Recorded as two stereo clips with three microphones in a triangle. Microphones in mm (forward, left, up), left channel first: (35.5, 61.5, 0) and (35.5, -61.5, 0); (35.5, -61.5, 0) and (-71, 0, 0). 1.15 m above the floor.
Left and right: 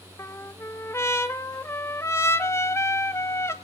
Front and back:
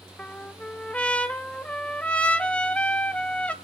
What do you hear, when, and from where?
0.2 s a trumpet: 40° left, 1.0 m